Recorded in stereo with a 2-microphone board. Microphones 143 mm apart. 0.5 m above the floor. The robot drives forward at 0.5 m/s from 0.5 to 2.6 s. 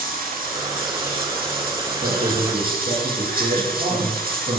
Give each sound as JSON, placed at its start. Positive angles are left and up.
{"t": 0.0, "sound": "running water", "side_deg": -75, "distance_m": 4.0}
{"t": 2.0, "sound": "a man speaking", "side_deg": -65, "distance_m": 9.0}